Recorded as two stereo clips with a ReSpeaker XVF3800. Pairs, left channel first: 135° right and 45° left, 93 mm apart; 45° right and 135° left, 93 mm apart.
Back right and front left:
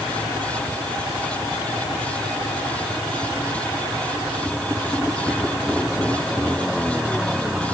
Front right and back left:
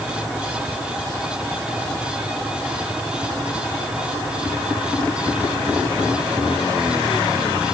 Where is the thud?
No thud in this recording.